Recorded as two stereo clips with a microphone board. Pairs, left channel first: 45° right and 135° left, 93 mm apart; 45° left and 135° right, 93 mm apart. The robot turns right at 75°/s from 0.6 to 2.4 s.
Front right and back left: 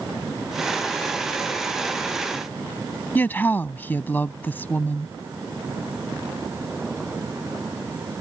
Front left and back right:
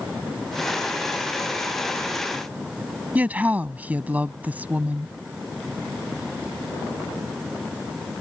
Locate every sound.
3.1 s a woman speaking: 85° right